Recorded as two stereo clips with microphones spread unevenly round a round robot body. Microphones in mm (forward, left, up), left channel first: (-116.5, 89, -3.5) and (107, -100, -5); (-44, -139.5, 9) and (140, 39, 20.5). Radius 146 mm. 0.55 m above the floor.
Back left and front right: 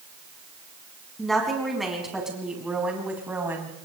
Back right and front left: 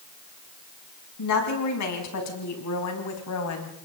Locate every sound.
1.2 s a woman speaking: 130° right, 5.5 m; by 3.7 s 125° right, 4 m